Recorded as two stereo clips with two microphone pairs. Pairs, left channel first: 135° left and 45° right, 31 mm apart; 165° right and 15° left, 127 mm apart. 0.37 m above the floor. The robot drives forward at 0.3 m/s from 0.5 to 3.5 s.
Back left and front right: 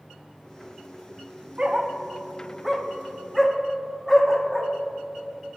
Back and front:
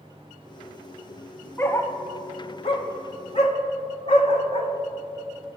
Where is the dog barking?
100° right, 0.5 m; by 4.7 s 140° right, 0.8 m.